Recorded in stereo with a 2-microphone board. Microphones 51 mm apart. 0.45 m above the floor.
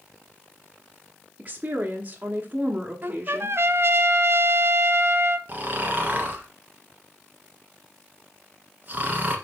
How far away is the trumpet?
About 0.7 m.